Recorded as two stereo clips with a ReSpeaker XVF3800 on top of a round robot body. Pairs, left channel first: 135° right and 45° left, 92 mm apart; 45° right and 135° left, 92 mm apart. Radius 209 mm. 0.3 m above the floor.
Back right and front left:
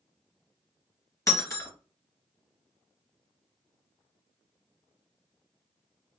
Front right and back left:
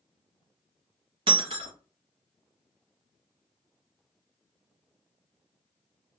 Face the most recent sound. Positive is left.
turn(degrees=165)